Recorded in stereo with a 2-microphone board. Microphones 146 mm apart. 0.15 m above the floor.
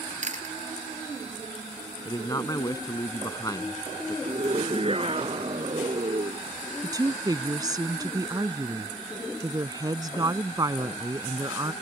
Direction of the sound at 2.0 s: 25° left (ahead or behind).